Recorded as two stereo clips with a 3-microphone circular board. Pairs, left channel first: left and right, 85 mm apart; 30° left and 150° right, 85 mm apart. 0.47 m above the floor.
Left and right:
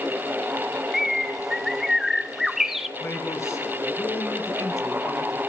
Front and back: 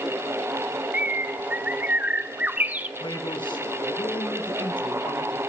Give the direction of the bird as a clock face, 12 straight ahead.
6 o'clock.